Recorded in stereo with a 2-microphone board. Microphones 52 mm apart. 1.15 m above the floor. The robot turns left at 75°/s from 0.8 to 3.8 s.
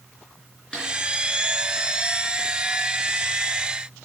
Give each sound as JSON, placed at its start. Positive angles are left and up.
{"t": 0.7, "sound": "a snare drum", "side_deg": 15, "distance_m": 3.5}